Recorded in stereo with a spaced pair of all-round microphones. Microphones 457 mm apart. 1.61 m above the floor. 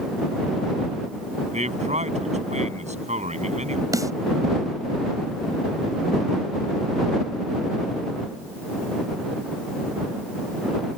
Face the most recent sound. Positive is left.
turn(degrees=-5)  # may be behind; listen again after turning